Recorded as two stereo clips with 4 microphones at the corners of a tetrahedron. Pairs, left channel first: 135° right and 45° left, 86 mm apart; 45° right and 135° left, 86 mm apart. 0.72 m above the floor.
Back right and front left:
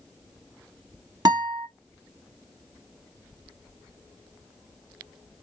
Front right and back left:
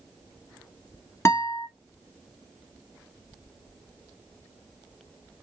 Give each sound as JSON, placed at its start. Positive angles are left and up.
{"t": 1.2, "sound": "a guitar", "azimuth_deg": 10, "distance_m": 1.4}